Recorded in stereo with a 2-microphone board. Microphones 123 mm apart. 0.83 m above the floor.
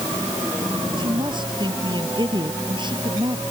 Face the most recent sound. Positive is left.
turn(degrees=-40)  # may be behind; listen again after turning